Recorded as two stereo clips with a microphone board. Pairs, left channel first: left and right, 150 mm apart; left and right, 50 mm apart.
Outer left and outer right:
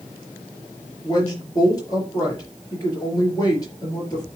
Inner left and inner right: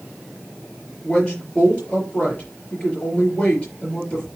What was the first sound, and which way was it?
A woman speaking, 25° left (ahead or behind).